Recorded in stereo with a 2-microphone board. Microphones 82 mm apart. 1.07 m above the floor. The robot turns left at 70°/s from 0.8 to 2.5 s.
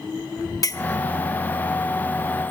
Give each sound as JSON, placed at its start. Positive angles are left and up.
{"t": 0.6, "sound": "a clink", "side_deg": 45, "distance_m": 1.1}